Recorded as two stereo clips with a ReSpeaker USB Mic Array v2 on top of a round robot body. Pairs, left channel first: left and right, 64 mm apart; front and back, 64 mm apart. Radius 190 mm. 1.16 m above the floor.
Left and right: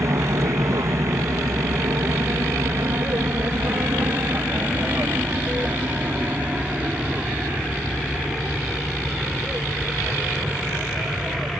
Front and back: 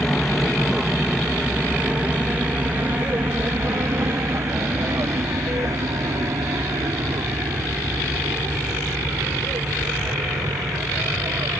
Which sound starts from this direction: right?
An aircraft, at 0.0 s.